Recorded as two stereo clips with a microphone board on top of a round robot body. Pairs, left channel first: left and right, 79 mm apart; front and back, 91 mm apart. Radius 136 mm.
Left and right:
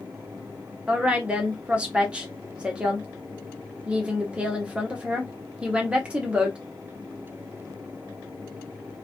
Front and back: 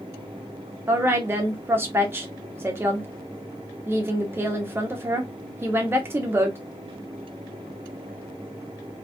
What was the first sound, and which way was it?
A woman speaking, 150° right.